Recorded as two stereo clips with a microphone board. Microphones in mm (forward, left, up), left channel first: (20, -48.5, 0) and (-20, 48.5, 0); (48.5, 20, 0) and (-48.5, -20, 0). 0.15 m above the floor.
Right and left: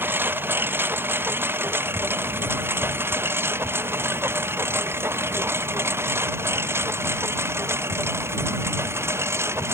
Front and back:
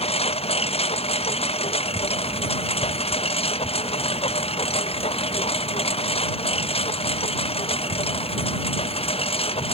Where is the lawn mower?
40° left; by 9.7 s 45° left.